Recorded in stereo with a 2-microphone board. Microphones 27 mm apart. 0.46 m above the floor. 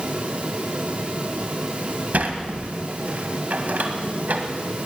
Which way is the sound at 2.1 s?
70° right (ahead or behind).